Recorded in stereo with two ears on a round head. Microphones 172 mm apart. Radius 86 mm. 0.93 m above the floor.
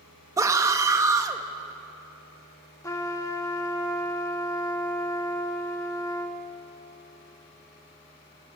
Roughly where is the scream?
Centre.